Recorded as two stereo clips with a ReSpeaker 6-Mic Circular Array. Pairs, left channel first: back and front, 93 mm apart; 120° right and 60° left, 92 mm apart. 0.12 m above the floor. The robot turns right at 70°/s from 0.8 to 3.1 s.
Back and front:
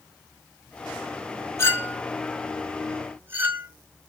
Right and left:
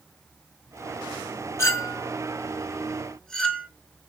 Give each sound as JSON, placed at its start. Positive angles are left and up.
{"t": 1.6, "sound": "a clink", "azimuth_deg": -150, "distance_m": 0.8}